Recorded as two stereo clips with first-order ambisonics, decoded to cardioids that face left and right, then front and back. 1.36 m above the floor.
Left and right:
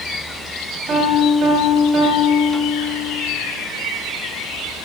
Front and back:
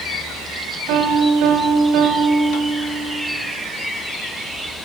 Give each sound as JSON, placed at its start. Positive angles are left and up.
{"t": 0.9, "sound": "a piano", "azimuth_deg": -145, "distance_m": 2.5}